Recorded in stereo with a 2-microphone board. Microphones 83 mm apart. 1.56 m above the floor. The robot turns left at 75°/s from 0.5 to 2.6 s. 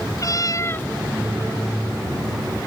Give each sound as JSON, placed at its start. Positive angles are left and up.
{"t": 0.2, "sound": "a cat meowing", "side_deg": 45}